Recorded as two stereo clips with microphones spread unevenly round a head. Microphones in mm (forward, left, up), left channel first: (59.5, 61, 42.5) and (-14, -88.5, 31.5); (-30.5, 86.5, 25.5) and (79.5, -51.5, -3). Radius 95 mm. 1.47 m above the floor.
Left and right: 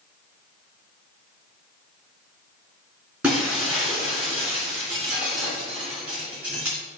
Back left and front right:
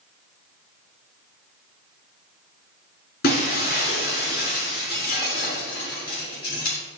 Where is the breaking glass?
155° left, 3 m.